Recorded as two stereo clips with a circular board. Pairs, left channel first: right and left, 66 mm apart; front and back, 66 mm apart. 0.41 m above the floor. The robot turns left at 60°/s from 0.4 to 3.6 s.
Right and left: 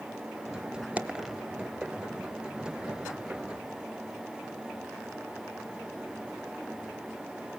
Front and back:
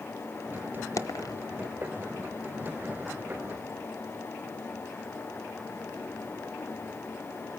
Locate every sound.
1.0 s a dropped coin: 25° left, 1.0 m; by 1.4 s straight ahead, 1.0 m